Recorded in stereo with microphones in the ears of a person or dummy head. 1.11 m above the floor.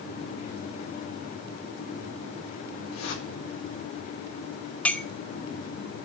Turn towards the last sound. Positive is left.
turn(degrees=10)  # may be behind; listen again after turning